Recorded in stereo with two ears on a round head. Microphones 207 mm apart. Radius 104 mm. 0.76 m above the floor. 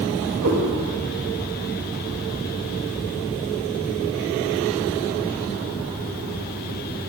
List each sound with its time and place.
0.4 s a cat meowing: 70° right (ahead or behind), 1.4 m